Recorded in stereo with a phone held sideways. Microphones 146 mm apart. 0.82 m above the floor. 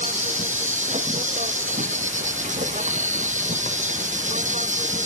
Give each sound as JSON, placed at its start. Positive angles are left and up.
{"t": 0.0, "sound": "an insect", "side_deg": -55}